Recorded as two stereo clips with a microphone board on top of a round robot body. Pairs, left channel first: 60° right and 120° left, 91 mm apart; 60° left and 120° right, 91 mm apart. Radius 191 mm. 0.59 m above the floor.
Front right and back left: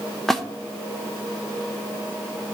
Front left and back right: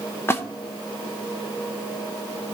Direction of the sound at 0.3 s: 25° left.